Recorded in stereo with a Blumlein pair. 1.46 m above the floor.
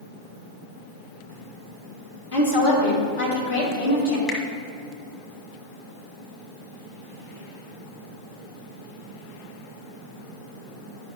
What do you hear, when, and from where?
2.3 s a woman speaking: 65° left, 2.5 m
4.3 s a finger snap: 25° left, 1.7 m